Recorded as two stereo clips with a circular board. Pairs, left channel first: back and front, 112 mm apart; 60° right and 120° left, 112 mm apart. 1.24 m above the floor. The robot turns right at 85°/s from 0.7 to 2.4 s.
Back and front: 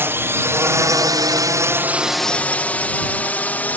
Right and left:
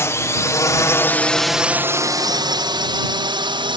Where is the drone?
35° right; by 3.8 s 110° left.